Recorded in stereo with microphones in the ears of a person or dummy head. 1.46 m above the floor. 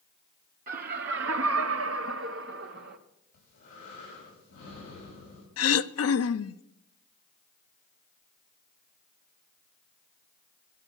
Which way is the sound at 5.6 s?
65° left (ahead or behind).